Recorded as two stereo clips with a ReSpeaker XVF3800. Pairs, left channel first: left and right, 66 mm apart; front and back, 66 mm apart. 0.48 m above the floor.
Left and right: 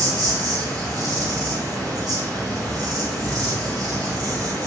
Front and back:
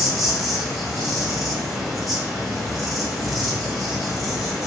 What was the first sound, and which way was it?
An insect, 90° right.